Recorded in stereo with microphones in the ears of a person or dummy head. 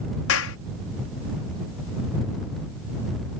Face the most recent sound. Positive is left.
turn(degrees=70)  # may be behind; listen again after turning